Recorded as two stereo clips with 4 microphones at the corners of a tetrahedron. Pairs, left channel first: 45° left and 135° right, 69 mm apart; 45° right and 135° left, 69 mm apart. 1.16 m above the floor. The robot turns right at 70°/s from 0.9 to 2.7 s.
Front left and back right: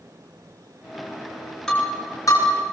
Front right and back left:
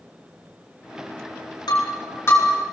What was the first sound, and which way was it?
Breaking glass, 40° right.